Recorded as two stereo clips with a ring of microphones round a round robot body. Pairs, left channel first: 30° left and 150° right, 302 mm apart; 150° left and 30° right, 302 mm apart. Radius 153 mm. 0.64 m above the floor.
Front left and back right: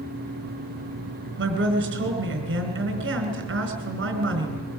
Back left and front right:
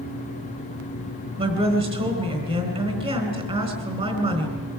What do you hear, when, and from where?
1.4 s a woman speaking: 100° right, 4 m